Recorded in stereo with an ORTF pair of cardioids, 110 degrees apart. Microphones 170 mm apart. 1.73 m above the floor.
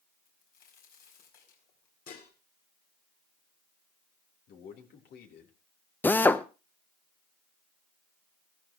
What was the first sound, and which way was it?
A crack, 60° left.